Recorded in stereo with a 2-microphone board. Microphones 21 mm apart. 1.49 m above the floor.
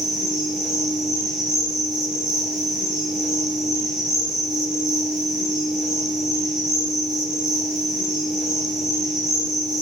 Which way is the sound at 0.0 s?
20° right (ahead or behind).